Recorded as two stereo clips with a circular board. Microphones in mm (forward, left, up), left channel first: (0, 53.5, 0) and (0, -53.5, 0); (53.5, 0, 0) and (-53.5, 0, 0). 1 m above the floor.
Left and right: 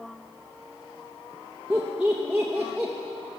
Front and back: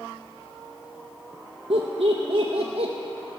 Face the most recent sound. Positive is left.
turn(degrees=-170)